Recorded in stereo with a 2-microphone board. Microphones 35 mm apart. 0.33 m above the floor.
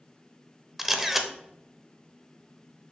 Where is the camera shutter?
10° right (ahead or behind), 0.6 m.